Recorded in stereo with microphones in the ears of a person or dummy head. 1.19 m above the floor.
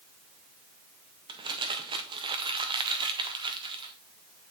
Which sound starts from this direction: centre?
Crumpling, at 1.3 s.